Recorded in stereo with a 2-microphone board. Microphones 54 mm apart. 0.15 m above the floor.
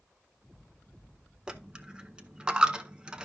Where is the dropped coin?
15° right (ahead or behind), 0.6 m.